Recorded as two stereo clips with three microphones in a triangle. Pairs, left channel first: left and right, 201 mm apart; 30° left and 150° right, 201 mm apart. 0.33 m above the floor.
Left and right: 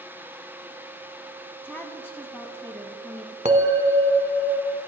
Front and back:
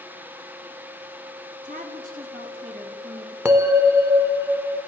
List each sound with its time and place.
1.6 s a woman speaking: 170° left, 2.5 m
3.5 s a bell: 80° right, 1.3 m